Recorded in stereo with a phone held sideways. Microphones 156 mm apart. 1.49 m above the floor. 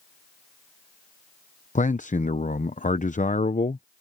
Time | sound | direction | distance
1.8 | a man speaking | 50° left (ahead or behind) | ?